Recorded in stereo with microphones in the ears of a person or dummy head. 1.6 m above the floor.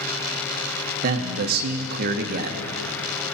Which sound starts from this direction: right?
A man speaking, at 1.0 s.